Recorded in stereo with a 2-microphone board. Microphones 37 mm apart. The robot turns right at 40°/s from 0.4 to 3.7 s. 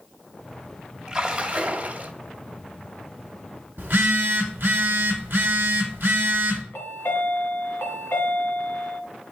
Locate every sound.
1.1 s a splash: 155° right, 0.9 m; by 2.1 s 115° right, 0.9 m
3.8 s a phone buzzing: 55° right (ahead or behind), 1.3 m
6.7 s a chime: 70° left (ahead or behind), 1.6 m